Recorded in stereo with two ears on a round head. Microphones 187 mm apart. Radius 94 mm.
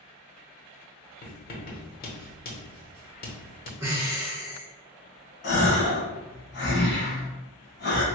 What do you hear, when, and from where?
1.2 s writing: 45° left (ahead or behind), 0.9 m
3.8 s breathing: 15° right (ahead or behind), 0.7 m
5.4 s a gasp: 50° left (ahead or behind), 1.3 m